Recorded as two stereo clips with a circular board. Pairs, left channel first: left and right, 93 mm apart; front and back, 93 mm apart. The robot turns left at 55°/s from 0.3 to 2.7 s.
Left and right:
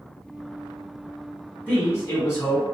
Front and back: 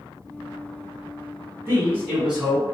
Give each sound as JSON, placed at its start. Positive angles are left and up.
{"t": 1.7, "sound": "a man speaking", "azimuth_deg": 145, "distance_m": 1.5}